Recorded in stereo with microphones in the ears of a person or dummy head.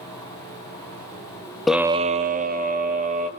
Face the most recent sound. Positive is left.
turn(degrees=-35)  # may be behind; listen again after turning